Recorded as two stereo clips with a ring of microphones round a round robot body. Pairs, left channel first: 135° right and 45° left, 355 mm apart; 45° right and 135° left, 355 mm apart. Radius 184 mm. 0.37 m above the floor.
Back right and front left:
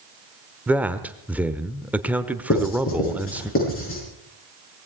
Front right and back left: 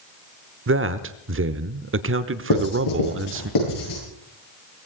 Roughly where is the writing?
Right.